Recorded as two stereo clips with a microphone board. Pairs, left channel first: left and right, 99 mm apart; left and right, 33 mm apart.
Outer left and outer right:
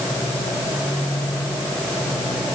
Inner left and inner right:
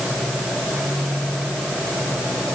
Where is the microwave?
No microwave in this recording.